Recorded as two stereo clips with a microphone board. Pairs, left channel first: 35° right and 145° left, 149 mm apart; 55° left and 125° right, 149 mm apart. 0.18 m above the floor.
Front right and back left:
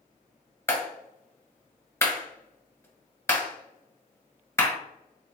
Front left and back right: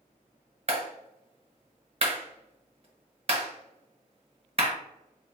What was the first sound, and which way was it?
A clap, 100° right.